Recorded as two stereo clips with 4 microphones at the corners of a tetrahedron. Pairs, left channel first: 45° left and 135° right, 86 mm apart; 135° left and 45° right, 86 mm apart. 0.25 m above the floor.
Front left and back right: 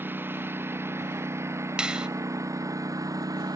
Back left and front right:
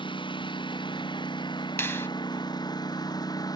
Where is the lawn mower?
155° left; by 3.6 s 175° left.